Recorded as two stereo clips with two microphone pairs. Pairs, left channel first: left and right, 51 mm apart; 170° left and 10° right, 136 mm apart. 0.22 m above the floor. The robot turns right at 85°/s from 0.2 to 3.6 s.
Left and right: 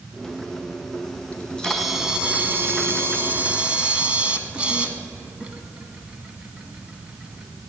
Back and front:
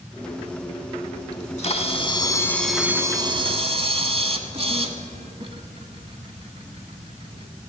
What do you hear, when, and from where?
1.3 s a camera shutter: 140° left, 0.9 m; by 7.5 s 25° right, 0.9 m